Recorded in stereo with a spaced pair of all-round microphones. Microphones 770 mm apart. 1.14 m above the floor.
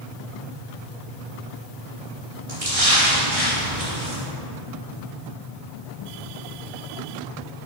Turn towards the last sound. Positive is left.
turn(degrees=-45)  # may be behind; listen again after turning